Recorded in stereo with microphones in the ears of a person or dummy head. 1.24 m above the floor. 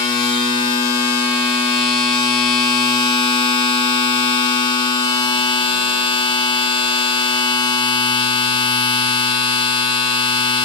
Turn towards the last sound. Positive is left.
turn(degrees=25)  # may be behind; listen again after turning